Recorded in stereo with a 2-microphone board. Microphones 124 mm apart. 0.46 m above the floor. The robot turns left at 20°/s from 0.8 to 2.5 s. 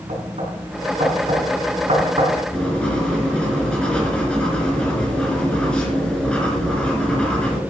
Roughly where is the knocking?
Right.